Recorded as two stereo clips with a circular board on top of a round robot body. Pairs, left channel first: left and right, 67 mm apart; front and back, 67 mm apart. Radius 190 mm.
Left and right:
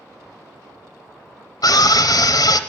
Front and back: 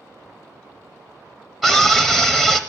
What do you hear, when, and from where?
1.6 s a scream: 100° left, 0.8 m